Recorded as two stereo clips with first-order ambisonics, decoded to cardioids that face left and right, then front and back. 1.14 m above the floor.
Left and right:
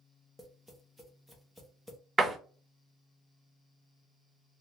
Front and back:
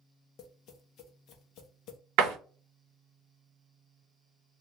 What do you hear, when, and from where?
0.4 s tapping: 5° left, 0.8 m
2.2 s a door slam: 165° right, 0.7 m